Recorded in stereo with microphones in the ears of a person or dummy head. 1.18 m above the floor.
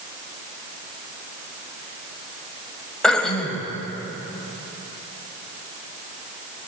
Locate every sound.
3.0 s throat clearing: 5° left (ahead or behind), 1.6 m